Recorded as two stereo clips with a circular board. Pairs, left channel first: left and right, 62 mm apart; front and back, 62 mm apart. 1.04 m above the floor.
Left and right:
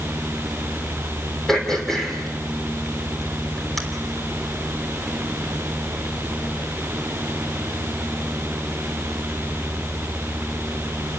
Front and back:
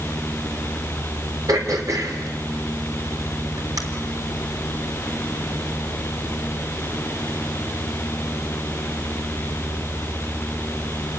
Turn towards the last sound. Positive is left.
turn(degrees=175)